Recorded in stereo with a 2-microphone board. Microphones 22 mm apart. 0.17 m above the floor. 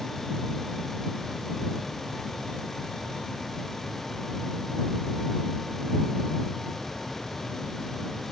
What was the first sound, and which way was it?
Only background noise.